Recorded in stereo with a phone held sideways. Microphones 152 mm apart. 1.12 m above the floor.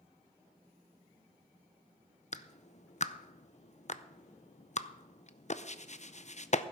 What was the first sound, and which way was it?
A clap, 50° left (ahead or behind).